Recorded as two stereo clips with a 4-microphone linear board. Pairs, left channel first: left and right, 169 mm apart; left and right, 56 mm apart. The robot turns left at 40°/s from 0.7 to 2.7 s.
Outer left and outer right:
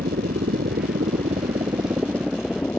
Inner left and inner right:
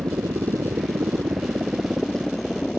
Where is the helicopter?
65° right (ahead or behind); by 2.8 s 10° left (ahead or behind).